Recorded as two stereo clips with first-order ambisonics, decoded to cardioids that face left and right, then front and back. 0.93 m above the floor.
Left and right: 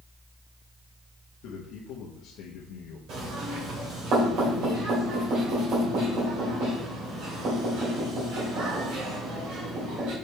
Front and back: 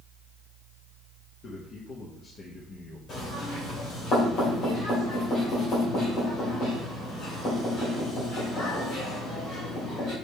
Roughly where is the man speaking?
Ahead left.